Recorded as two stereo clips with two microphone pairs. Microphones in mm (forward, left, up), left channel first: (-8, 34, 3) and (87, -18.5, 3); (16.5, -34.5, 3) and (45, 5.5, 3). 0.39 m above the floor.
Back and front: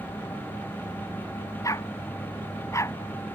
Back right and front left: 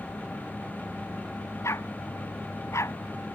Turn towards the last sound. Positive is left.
turn(degrees=-145)